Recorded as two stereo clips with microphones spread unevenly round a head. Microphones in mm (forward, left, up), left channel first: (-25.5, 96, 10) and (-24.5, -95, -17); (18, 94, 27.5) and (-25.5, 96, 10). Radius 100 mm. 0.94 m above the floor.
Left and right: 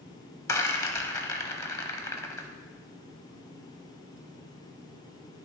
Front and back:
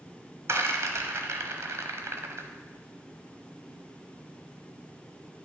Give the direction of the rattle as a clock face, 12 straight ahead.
7 o'clock.